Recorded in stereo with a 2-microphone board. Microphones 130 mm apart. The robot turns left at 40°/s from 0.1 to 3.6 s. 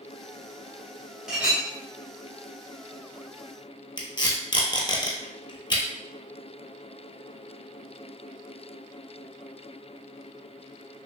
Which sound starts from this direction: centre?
A clink, at 1.3 s.